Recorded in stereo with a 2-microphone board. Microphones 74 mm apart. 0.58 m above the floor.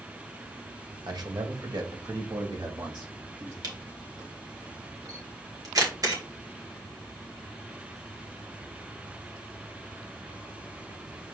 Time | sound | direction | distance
1.1 | a man speaking | 60° right (ahead or behind) | 2 m
3.6 | a camera shutter | 55° right (ahead or behind) | 3 m